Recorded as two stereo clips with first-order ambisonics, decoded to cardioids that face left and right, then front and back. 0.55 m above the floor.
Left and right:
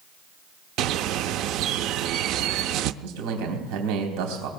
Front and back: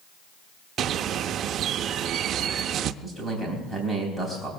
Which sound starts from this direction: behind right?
A bird, at 0.8 s.